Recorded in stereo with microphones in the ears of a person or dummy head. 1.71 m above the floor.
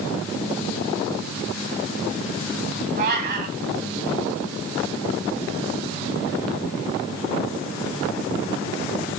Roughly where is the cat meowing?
Right.